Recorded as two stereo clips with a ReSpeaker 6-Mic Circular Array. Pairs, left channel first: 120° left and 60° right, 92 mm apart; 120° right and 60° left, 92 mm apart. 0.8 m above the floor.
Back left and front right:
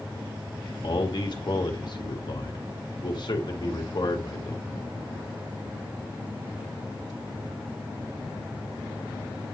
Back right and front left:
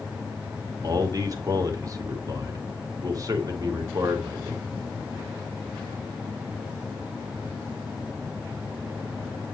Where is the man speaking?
100° left, 1.6 m.